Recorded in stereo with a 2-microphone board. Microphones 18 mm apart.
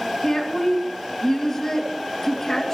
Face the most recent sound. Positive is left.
turn(degrees=25)  # may be behind; listen again after turning